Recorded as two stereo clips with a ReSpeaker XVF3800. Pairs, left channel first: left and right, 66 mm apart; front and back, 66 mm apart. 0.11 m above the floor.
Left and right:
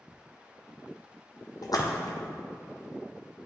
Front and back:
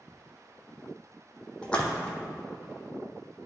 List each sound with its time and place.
1.6 s a splash: 75° left, 1.0 m